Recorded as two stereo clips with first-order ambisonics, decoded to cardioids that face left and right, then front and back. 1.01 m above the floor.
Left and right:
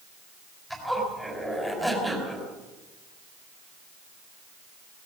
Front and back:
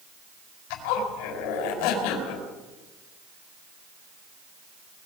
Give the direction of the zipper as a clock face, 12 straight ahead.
12 o'clock.